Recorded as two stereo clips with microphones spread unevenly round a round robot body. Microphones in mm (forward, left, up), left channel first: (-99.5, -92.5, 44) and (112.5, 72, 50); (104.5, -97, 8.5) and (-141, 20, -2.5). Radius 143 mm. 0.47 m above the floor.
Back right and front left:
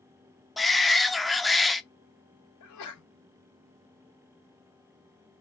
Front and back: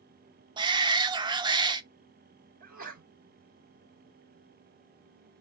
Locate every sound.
0.6 s a shout: 130° left, 0.7 m
2.6 s a sneeze: 150° right, 3 m